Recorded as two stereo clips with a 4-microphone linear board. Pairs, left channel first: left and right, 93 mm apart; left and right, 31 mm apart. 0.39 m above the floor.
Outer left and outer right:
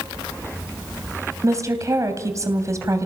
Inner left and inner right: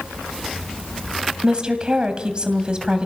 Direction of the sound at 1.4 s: 35° right (ahead or behind).